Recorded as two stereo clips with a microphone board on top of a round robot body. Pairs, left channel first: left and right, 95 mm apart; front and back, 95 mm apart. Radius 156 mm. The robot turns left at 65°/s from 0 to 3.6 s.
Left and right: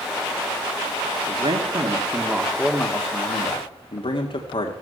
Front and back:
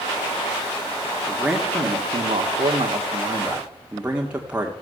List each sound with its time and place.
1.3 s a man speaking: 100° right, 1.8 m; by 4.7 s 105° left, 1.8 m